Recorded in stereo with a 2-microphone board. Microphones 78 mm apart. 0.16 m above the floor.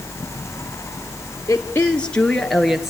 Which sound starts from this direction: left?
A woman speaking, at 1.5 s.